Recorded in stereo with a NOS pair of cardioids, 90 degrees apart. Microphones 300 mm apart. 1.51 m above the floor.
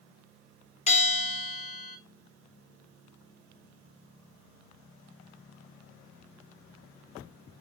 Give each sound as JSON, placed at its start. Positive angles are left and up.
{"t": 0.9, "sound": "a bell", "azimuth_deg": 20, "distance_m": 0.9}